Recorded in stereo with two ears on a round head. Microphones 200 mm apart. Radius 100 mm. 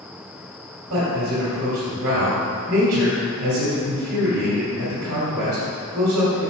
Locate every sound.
0.9 s a man speaking: 65° right (ahead or behind), 2.5 m